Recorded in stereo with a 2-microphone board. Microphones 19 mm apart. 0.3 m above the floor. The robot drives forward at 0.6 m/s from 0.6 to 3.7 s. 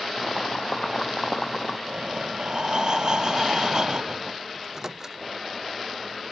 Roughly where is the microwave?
Right.